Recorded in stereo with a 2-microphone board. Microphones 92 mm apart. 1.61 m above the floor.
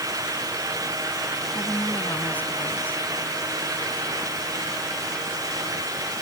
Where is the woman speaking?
20° left (ahead or behind).